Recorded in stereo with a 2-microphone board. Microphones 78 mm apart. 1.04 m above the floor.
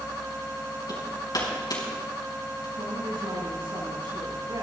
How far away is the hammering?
About 5 m.